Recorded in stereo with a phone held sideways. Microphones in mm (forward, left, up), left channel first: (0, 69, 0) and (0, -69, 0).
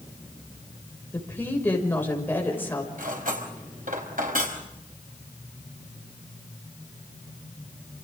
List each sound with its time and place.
1.1 s a woman speaking: 15° left (ahead or behind), 6 m
3.0 s cutlery clinking: 80° right, 4.5 m